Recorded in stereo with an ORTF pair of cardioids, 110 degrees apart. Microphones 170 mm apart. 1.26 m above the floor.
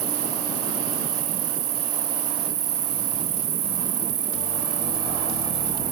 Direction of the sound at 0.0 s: 60° right.